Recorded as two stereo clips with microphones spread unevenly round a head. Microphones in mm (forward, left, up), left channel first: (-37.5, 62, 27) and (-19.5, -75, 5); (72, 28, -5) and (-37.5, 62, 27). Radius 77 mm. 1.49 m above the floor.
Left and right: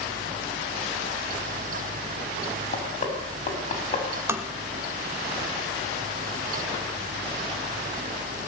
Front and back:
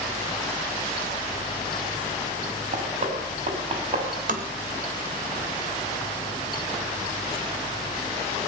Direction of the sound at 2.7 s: 140° left.